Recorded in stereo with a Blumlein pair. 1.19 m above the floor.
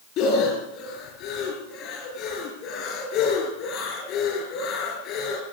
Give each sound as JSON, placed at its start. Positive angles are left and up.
{"t": 0.2, "sound": "breathing", "azimuth_deg": 40, "distance_m": 5.0}